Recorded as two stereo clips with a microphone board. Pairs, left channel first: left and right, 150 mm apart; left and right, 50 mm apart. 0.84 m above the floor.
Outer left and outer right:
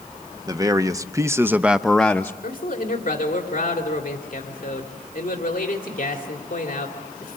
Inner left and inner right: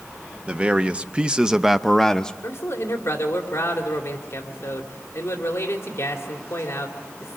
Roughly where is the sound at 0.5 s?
Right.